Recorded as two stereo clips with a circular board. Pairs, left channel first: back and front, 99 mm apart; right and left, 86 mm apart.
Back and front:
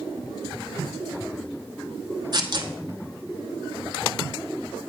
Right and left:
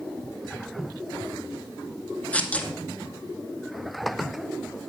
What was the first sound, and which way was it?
Tearing paper, 20° right.